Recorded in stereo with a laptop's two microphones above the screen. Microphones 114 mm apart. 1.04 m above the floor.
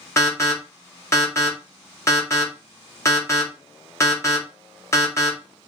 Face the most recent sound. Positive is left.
turn(degrees=25)  # may be behind; listen again after turning